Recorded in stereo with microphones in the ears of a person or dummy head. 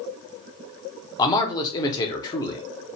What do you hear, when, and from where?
1.2 s a man speaking: 20° left (ahead or behind), 0.7 m